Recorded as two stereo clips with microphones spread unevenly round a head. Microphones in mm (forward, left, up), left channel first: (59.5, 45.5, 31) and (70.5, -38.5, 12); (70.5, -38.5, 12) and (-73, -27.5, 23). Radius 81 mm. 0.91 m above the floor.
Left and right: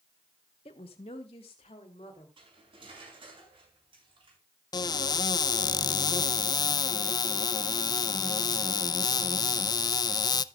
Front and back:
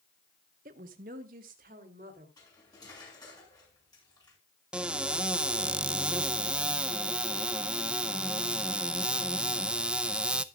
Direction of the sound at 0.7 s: 135° left.